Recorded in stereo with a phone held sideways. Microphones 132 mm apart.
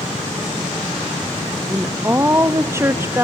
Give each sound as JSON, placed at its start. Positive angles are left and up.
{"t": 1.7, "sound": "a woman speaking", "side_deg": -20, "distance_m": 1.0}